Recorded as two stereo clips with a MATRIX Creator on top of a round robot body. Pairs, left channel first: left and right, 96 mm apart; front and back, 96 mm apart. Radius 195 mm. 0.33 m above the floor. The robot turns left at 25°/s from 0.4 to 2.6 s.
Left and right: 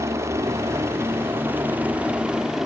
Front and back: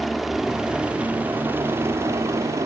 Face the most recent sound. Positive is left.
turn(degrees=-175)